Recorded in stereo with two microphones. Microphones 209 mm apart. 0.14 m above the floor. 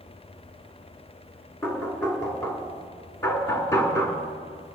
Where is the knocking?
15° left (ahead or behind), 1.6 m.